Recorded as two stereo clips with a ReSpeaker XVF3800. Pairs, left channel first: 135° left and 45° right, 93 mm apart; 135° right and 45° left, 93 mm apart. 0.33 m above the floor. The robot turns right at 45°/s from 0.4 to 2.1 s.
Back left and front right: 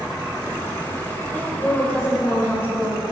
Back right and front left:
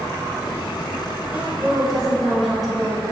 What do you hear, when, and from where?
1.3 s a woman speaking: 100° left, 1.4 m; by 3.0 s 135° left, 1.4 m